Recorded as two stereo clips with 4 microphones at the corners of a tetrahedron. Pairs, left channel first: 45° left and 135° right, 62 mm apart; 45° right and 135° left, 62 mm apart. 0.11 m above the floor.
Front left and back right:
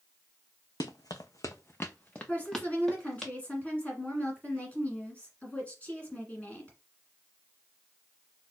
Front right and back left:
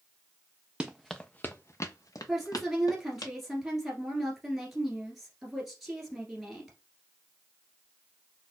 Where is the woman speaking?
50° left, 1.5 m.